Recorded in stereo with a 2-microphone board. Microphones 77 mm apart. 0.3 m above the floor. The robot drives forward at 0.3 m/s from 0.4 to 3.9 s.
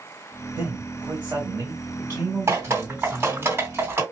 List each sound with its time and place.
0.6 s a man speaking: 30° right (ahead or behind), 2 m; by 3.5 s 35° right (ahead or behind), 1.7 m
2.5 s dripping: 35° right (ahead or behind), 2.5 m; by 4.0 s 30° right (ahead or behind), 2.5 m